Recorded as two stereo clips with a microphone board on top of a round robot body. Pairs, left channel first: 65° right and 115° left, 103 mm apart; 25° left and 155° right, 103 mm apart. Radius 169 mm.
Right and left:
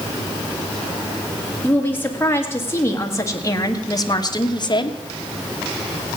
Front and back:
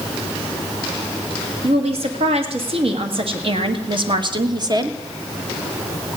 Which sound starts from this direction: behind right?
A woman speaking, at 1.6 s.